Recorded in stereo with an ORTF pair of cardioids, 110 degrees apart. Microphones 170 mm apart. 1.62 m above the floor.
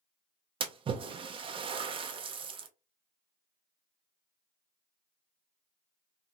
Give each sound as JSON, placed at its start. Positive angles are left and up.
{"t": 0.6, "sound": "a splash", "azimuth_deg": -30, "distance_m": 0.5}